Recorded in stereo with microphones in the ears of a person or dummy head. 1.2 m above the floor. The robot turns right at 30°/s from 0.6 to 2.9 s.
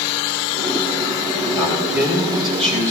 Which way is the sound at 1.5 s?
175° left.